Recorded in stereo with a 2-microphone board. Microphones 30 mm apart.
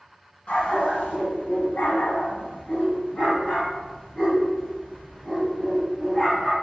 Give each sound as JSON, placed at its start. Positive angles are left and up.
{"t": 0.5, "sound": "a dog barking", "side_deg": 55, "distance_m": 1.3}